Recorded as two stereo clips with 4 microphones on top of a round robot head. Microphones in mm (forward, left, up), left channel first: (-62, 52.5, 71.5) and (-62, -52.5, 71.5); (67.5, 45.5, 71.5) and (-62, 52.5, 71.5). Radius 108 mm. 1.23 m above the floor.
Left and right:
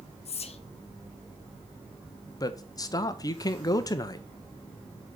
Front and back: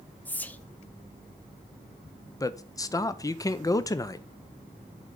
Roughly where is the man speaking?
Ahead left.